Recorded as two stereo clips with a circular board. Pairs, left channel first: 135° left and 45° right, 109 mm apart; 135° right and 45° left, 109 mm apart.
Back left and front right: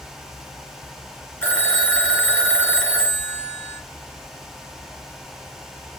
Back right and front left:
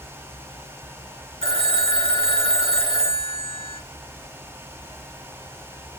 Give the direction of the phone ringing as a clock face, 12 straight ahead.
10 o'clock.